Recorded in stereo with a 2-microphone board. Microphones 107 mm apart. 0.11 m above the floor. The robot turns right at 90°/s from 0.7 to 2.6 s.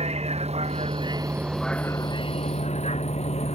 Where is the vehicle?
75° right (ahead or behind); by 3.6 s 80° left.